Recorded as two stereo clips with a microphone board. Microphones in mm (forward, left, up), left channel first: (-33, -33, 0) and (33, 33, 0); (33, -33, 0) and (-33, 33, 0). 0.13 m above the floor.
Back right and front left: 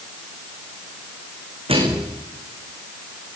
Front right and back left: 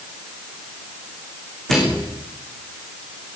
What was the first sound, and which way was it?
A microwave, 40° left.